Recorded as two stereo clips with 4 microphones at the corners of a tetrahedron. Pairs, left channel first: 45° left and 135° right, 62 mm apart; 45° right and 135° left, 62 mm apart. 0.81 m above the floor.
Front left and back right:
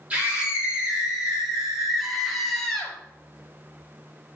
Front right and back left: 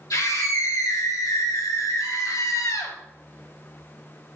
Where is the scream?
65° right, 3 m; by 3.0 s 35° right, 1.8 m.